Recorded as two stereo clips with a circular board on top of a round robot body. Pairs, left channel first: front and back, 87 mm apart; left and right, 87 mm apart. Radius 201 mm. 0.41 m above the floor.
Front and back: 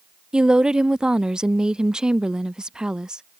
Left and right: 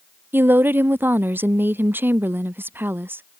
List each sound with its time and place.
0.3 s a woman speaking: 110° right